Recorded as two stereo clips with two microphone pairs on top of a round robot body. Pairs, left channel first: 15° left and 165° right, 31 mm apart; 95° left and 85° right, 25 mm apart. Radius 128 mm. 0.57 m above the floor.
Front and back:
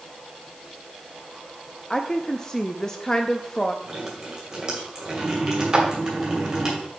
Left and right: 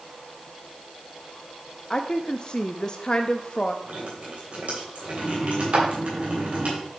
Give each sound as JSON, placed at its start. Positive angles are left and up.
{"t": 1.9, "sound": "a woman speaking", "azimuth_deg": 95, "distance_m": 0.7}
{"t": 3.8, "sound": "dripping", "azimuth_deg": -105, "distance_m": 3.0}
{"t": 5.7, "sound": "a clap", "azimuth_deg": -110, "distance_m": 1.6}